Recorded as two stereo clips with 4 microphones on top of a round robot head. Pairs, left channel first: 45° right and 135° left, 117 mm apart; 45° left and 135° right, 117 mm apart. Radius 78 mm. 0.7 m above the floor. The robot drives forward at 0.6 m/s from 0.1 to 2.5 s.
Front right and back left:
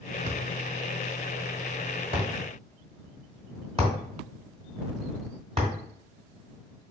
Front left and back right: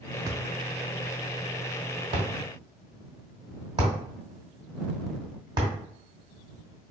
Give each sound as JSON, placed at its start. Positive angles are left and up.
{"t": 0.3, "sound": "a thud", "azimuth_deg": 160, "distance_m": 0.5}